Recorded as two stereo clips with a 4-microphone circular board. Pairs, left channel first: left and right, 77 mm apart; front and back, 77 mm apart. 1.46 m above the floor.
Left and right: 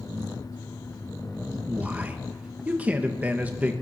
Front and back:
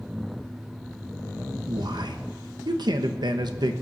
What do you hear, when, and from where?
1.7 s a man speaking: 160° right, 1.2 m